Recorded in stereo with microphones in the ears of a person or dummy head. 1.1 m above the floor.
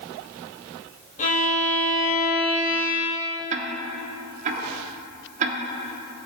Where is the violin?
40° left (ahead or behind), 1.3 m.